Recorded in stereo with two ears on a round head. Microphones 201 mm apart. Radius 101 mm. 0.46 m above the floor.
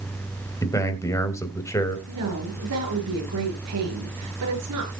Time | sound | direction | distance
0.6 | a man speaking | 15° left (ahead or behind) | 2.5 m
2.1 | a woman speaking | 80° right | 7.5 m